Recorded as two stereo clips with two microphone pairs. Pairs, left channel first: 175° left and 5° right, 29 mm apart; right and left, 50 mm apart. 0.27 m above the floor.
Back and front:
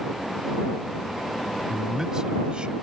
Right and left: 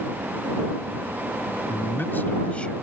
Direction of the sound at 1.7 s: 80° right.